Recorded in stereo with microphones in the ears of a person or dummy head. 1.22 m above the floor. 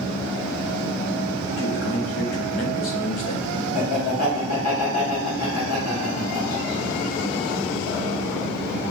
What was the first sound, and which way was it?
A man speaking, 65° left (ahead or behind).